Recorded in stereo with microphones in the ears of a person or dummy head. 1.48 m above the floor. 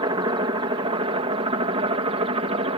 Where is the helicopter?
25° right (ahead or behind); by 2.8 s 30° right (ahead or behind).